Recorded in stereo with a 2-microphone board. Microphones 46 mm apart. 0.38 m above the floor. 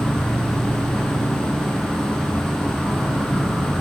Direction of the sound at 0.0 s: 15° left (ahead or behind).